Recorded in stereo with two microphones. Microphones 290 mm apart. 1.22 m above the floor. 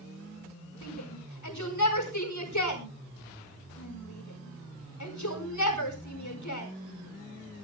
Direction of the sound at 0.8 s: 70° left (ahead or behind).